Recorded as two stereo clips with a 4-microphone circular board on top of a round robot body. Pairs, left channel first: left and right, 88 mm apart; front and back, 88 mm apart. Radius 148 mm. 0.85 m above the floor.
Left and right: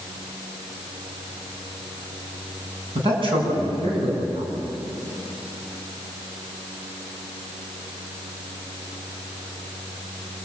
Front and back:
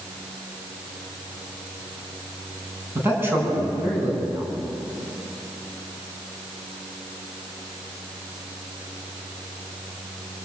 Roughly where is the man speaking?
Behind right.